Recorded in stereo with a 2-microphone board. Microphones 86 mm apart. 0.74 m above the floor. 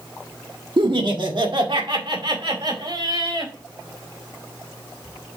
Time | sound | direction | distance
0.8 | laughter | 60° right (ahead or behind) | 1.4 m